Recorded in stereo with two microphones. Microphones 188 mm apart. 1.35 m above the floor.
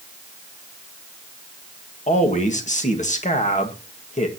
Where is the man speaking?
40° left (ahead or behind), 1.7 m.